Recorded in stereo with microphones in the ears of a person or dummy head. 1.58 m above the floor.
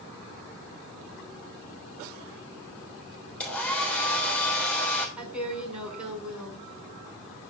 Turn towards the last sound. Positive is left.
turn(degrees=-10)  # may be behind; listen again after turning